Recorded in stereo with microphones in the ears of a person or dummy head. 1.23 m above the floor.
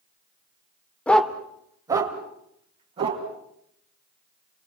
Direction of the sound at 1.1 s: 10° left (ahead or behind).